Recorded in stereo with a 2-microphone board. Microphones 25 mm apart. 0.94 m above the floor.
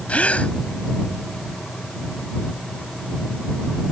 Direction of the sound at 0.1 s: 75° left (ahead or behind).